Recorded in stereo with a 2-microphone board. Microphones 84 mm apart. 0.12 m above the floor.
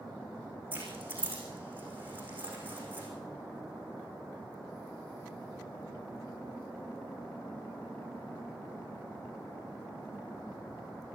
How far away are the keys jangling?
About 6 m.